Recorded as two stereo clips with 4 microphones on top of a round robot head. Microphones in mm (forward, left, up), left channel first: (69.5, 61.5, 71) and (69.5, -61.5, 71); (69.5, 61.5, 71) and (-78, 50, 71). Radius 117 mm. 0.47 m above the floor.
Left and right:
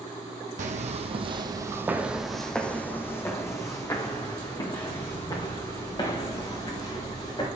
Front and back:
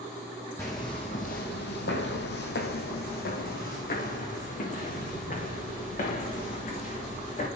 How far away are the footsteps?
About 1.2 m.